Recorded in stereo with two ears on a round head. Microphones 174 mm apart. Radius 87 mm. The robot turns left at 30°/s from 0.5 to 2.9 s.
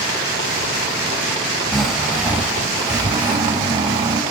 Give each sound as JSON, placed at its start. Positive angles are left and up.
{"t": 1.7, "sound": "snoring", "azimuth_deg": 0, "distance_m": 0.7}